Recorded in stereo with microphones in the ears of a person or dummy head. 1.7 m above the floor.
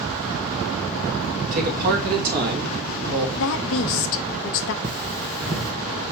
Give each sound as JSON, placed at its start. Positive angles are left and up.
{"t": 1.5, "sound": "a man speaking", "side_deg": -45, "distance_m": 1.6}
{"t": 3.4, "sound": "a woman speaking", "side_deg": 65, "distance_m": 0.8}
{"t": 4.8, "sound": "cutlery clinking", "side_deg": -20, "distance_m": 0.8}